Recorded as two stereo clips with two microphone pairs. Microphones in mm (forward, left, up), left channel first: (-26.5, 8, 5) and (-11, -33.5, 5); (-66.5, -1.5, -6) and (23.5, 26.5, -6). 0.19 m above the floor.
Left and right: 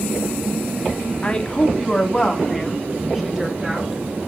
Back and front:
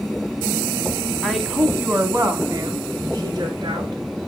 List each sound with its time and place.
1.2 s a woman speaking: 115° left, 1.3 m; by 4.0 s 5° left, 2.5 m